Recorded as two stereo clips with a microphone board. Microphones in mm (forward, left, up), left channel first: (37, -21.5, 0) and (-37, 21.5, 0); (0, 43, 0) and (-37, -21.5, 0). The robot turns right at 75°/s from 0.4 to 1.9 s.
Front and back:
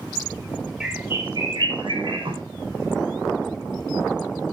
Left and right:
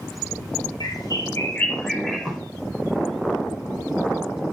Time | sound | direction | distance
0.8 | a bird | 60° left | 5.5 m